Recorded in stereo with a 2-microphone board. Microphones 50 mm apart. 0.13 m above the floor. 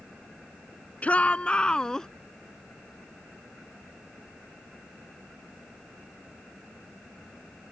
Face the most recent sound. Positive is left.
turn(degrees=15)  # may be behind; listen again after turning